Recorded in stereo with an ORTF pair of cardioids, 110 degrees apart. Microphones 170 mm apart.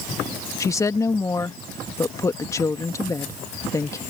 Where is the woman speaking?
20° left.